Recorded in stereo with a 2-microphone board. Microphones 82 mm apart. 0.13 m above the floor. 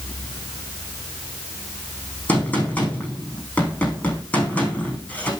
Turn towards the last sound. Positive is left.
turn(degrees=20)  # may be behind; listen again after turning